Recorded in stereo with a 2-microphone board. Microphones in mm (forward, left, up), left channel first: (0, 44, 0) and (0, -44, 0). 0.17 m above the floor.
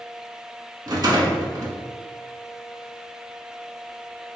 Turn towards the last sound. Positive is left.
turn(degrees=-45)  # may be behind; listen again after turning